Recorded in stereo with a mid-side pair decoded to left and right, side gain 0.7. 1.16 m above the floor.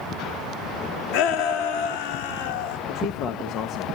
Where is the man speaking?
50° left, 1.5 m.